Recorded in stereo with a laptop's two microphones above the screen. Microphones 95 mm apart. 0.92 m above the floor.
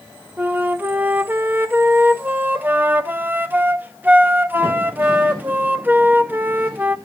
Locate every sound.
0.4 s a flute: 20° right (ahead or behind), 0.8 m